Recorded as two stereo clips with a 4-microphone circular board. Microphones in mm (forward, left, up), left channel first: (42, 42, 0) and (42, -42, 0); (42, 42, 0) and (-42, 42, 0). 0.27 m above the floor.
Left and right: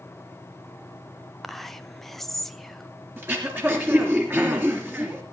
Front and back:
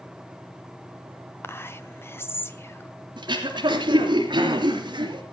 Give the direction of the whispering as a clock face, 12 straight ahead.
12 o'clock.